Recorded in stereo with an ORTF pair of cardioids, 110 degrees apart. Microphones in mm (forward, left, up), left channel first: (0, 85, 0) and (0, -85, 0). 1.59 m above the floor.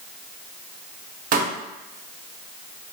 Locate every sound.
1.3 s a pop: 55° right, 0.7 m